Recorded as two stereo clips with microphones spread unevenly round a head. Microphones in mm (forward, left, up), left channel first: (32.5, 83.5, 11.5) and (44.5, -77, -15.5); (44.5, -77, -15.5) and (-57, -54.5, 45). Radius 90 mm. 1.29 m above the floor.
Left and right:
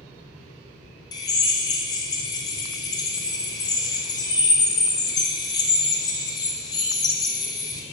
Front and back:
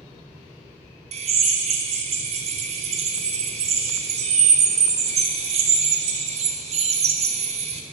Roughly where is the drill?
Behind.